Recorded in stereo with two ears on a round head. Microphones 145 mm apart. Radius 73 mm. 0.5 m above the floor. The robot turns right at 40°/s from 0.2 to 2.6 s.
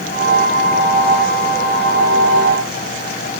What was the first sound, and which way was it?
Only background noise.